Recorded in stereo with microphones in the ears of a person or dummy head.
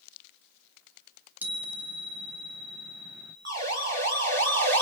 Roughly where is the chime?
Centre.